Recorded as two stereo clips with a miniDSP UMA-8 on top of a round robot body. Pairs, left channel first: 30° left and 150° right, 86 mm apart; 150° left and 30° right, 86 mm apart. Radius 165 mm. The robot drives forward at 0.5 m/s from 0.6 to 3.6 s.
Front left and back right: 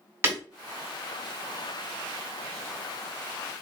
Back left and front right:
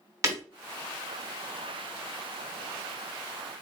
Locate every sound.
0.2 s breaking glass: 85° right, 0.6 m